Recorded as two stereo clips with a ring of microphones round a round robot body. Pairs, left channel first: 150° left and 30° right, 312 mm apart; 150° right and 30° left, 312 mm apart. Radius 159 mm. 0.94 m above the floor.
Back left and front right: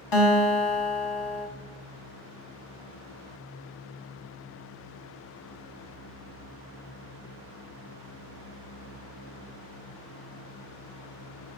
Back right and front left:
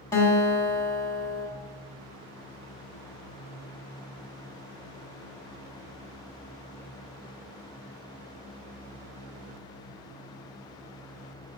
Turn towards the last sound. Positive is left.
turn(degrees=130)